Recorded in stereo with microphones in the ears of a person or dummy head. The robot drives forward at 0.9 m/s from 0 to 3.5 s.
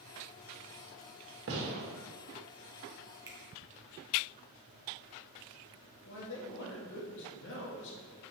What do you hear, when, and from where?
1.5 s a gunshot: 70° right (ahead or behind), 2.0 m; by 1.9 s 80° right, 1.9 m
3.3 s a finger snap: 20° right (ahead or behind), 1.4 m
6.0 s a man speaking: 65° left (ahead or behind), 1.9 m